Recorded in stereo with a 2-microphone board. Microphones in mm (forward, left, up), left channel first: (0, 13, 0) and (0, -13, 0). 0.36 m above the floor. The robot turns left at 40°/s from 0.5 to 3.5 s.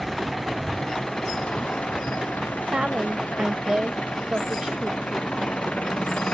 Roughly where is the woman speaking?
Right.